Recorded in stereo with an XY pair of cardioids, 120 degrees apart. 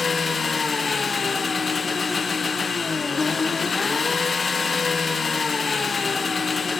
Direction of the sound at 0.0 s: 30° left.